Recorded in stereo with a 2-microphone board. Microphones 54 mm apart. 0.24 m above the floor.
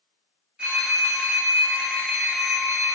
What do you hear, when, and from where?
0.6 s a phone ringing: 20° right (ahead or behind), 0.9 m